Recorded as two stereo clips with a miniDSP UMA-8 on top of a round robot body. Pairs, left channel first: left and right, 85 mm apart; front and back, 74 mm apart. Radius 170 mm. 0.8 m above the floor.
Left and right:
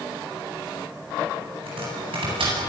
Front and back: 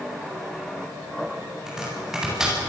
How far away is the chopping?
About 9 m.